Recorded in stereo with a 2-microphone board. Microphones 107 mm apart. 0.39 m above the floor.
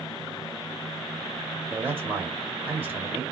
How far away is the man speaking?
About 1.8 m.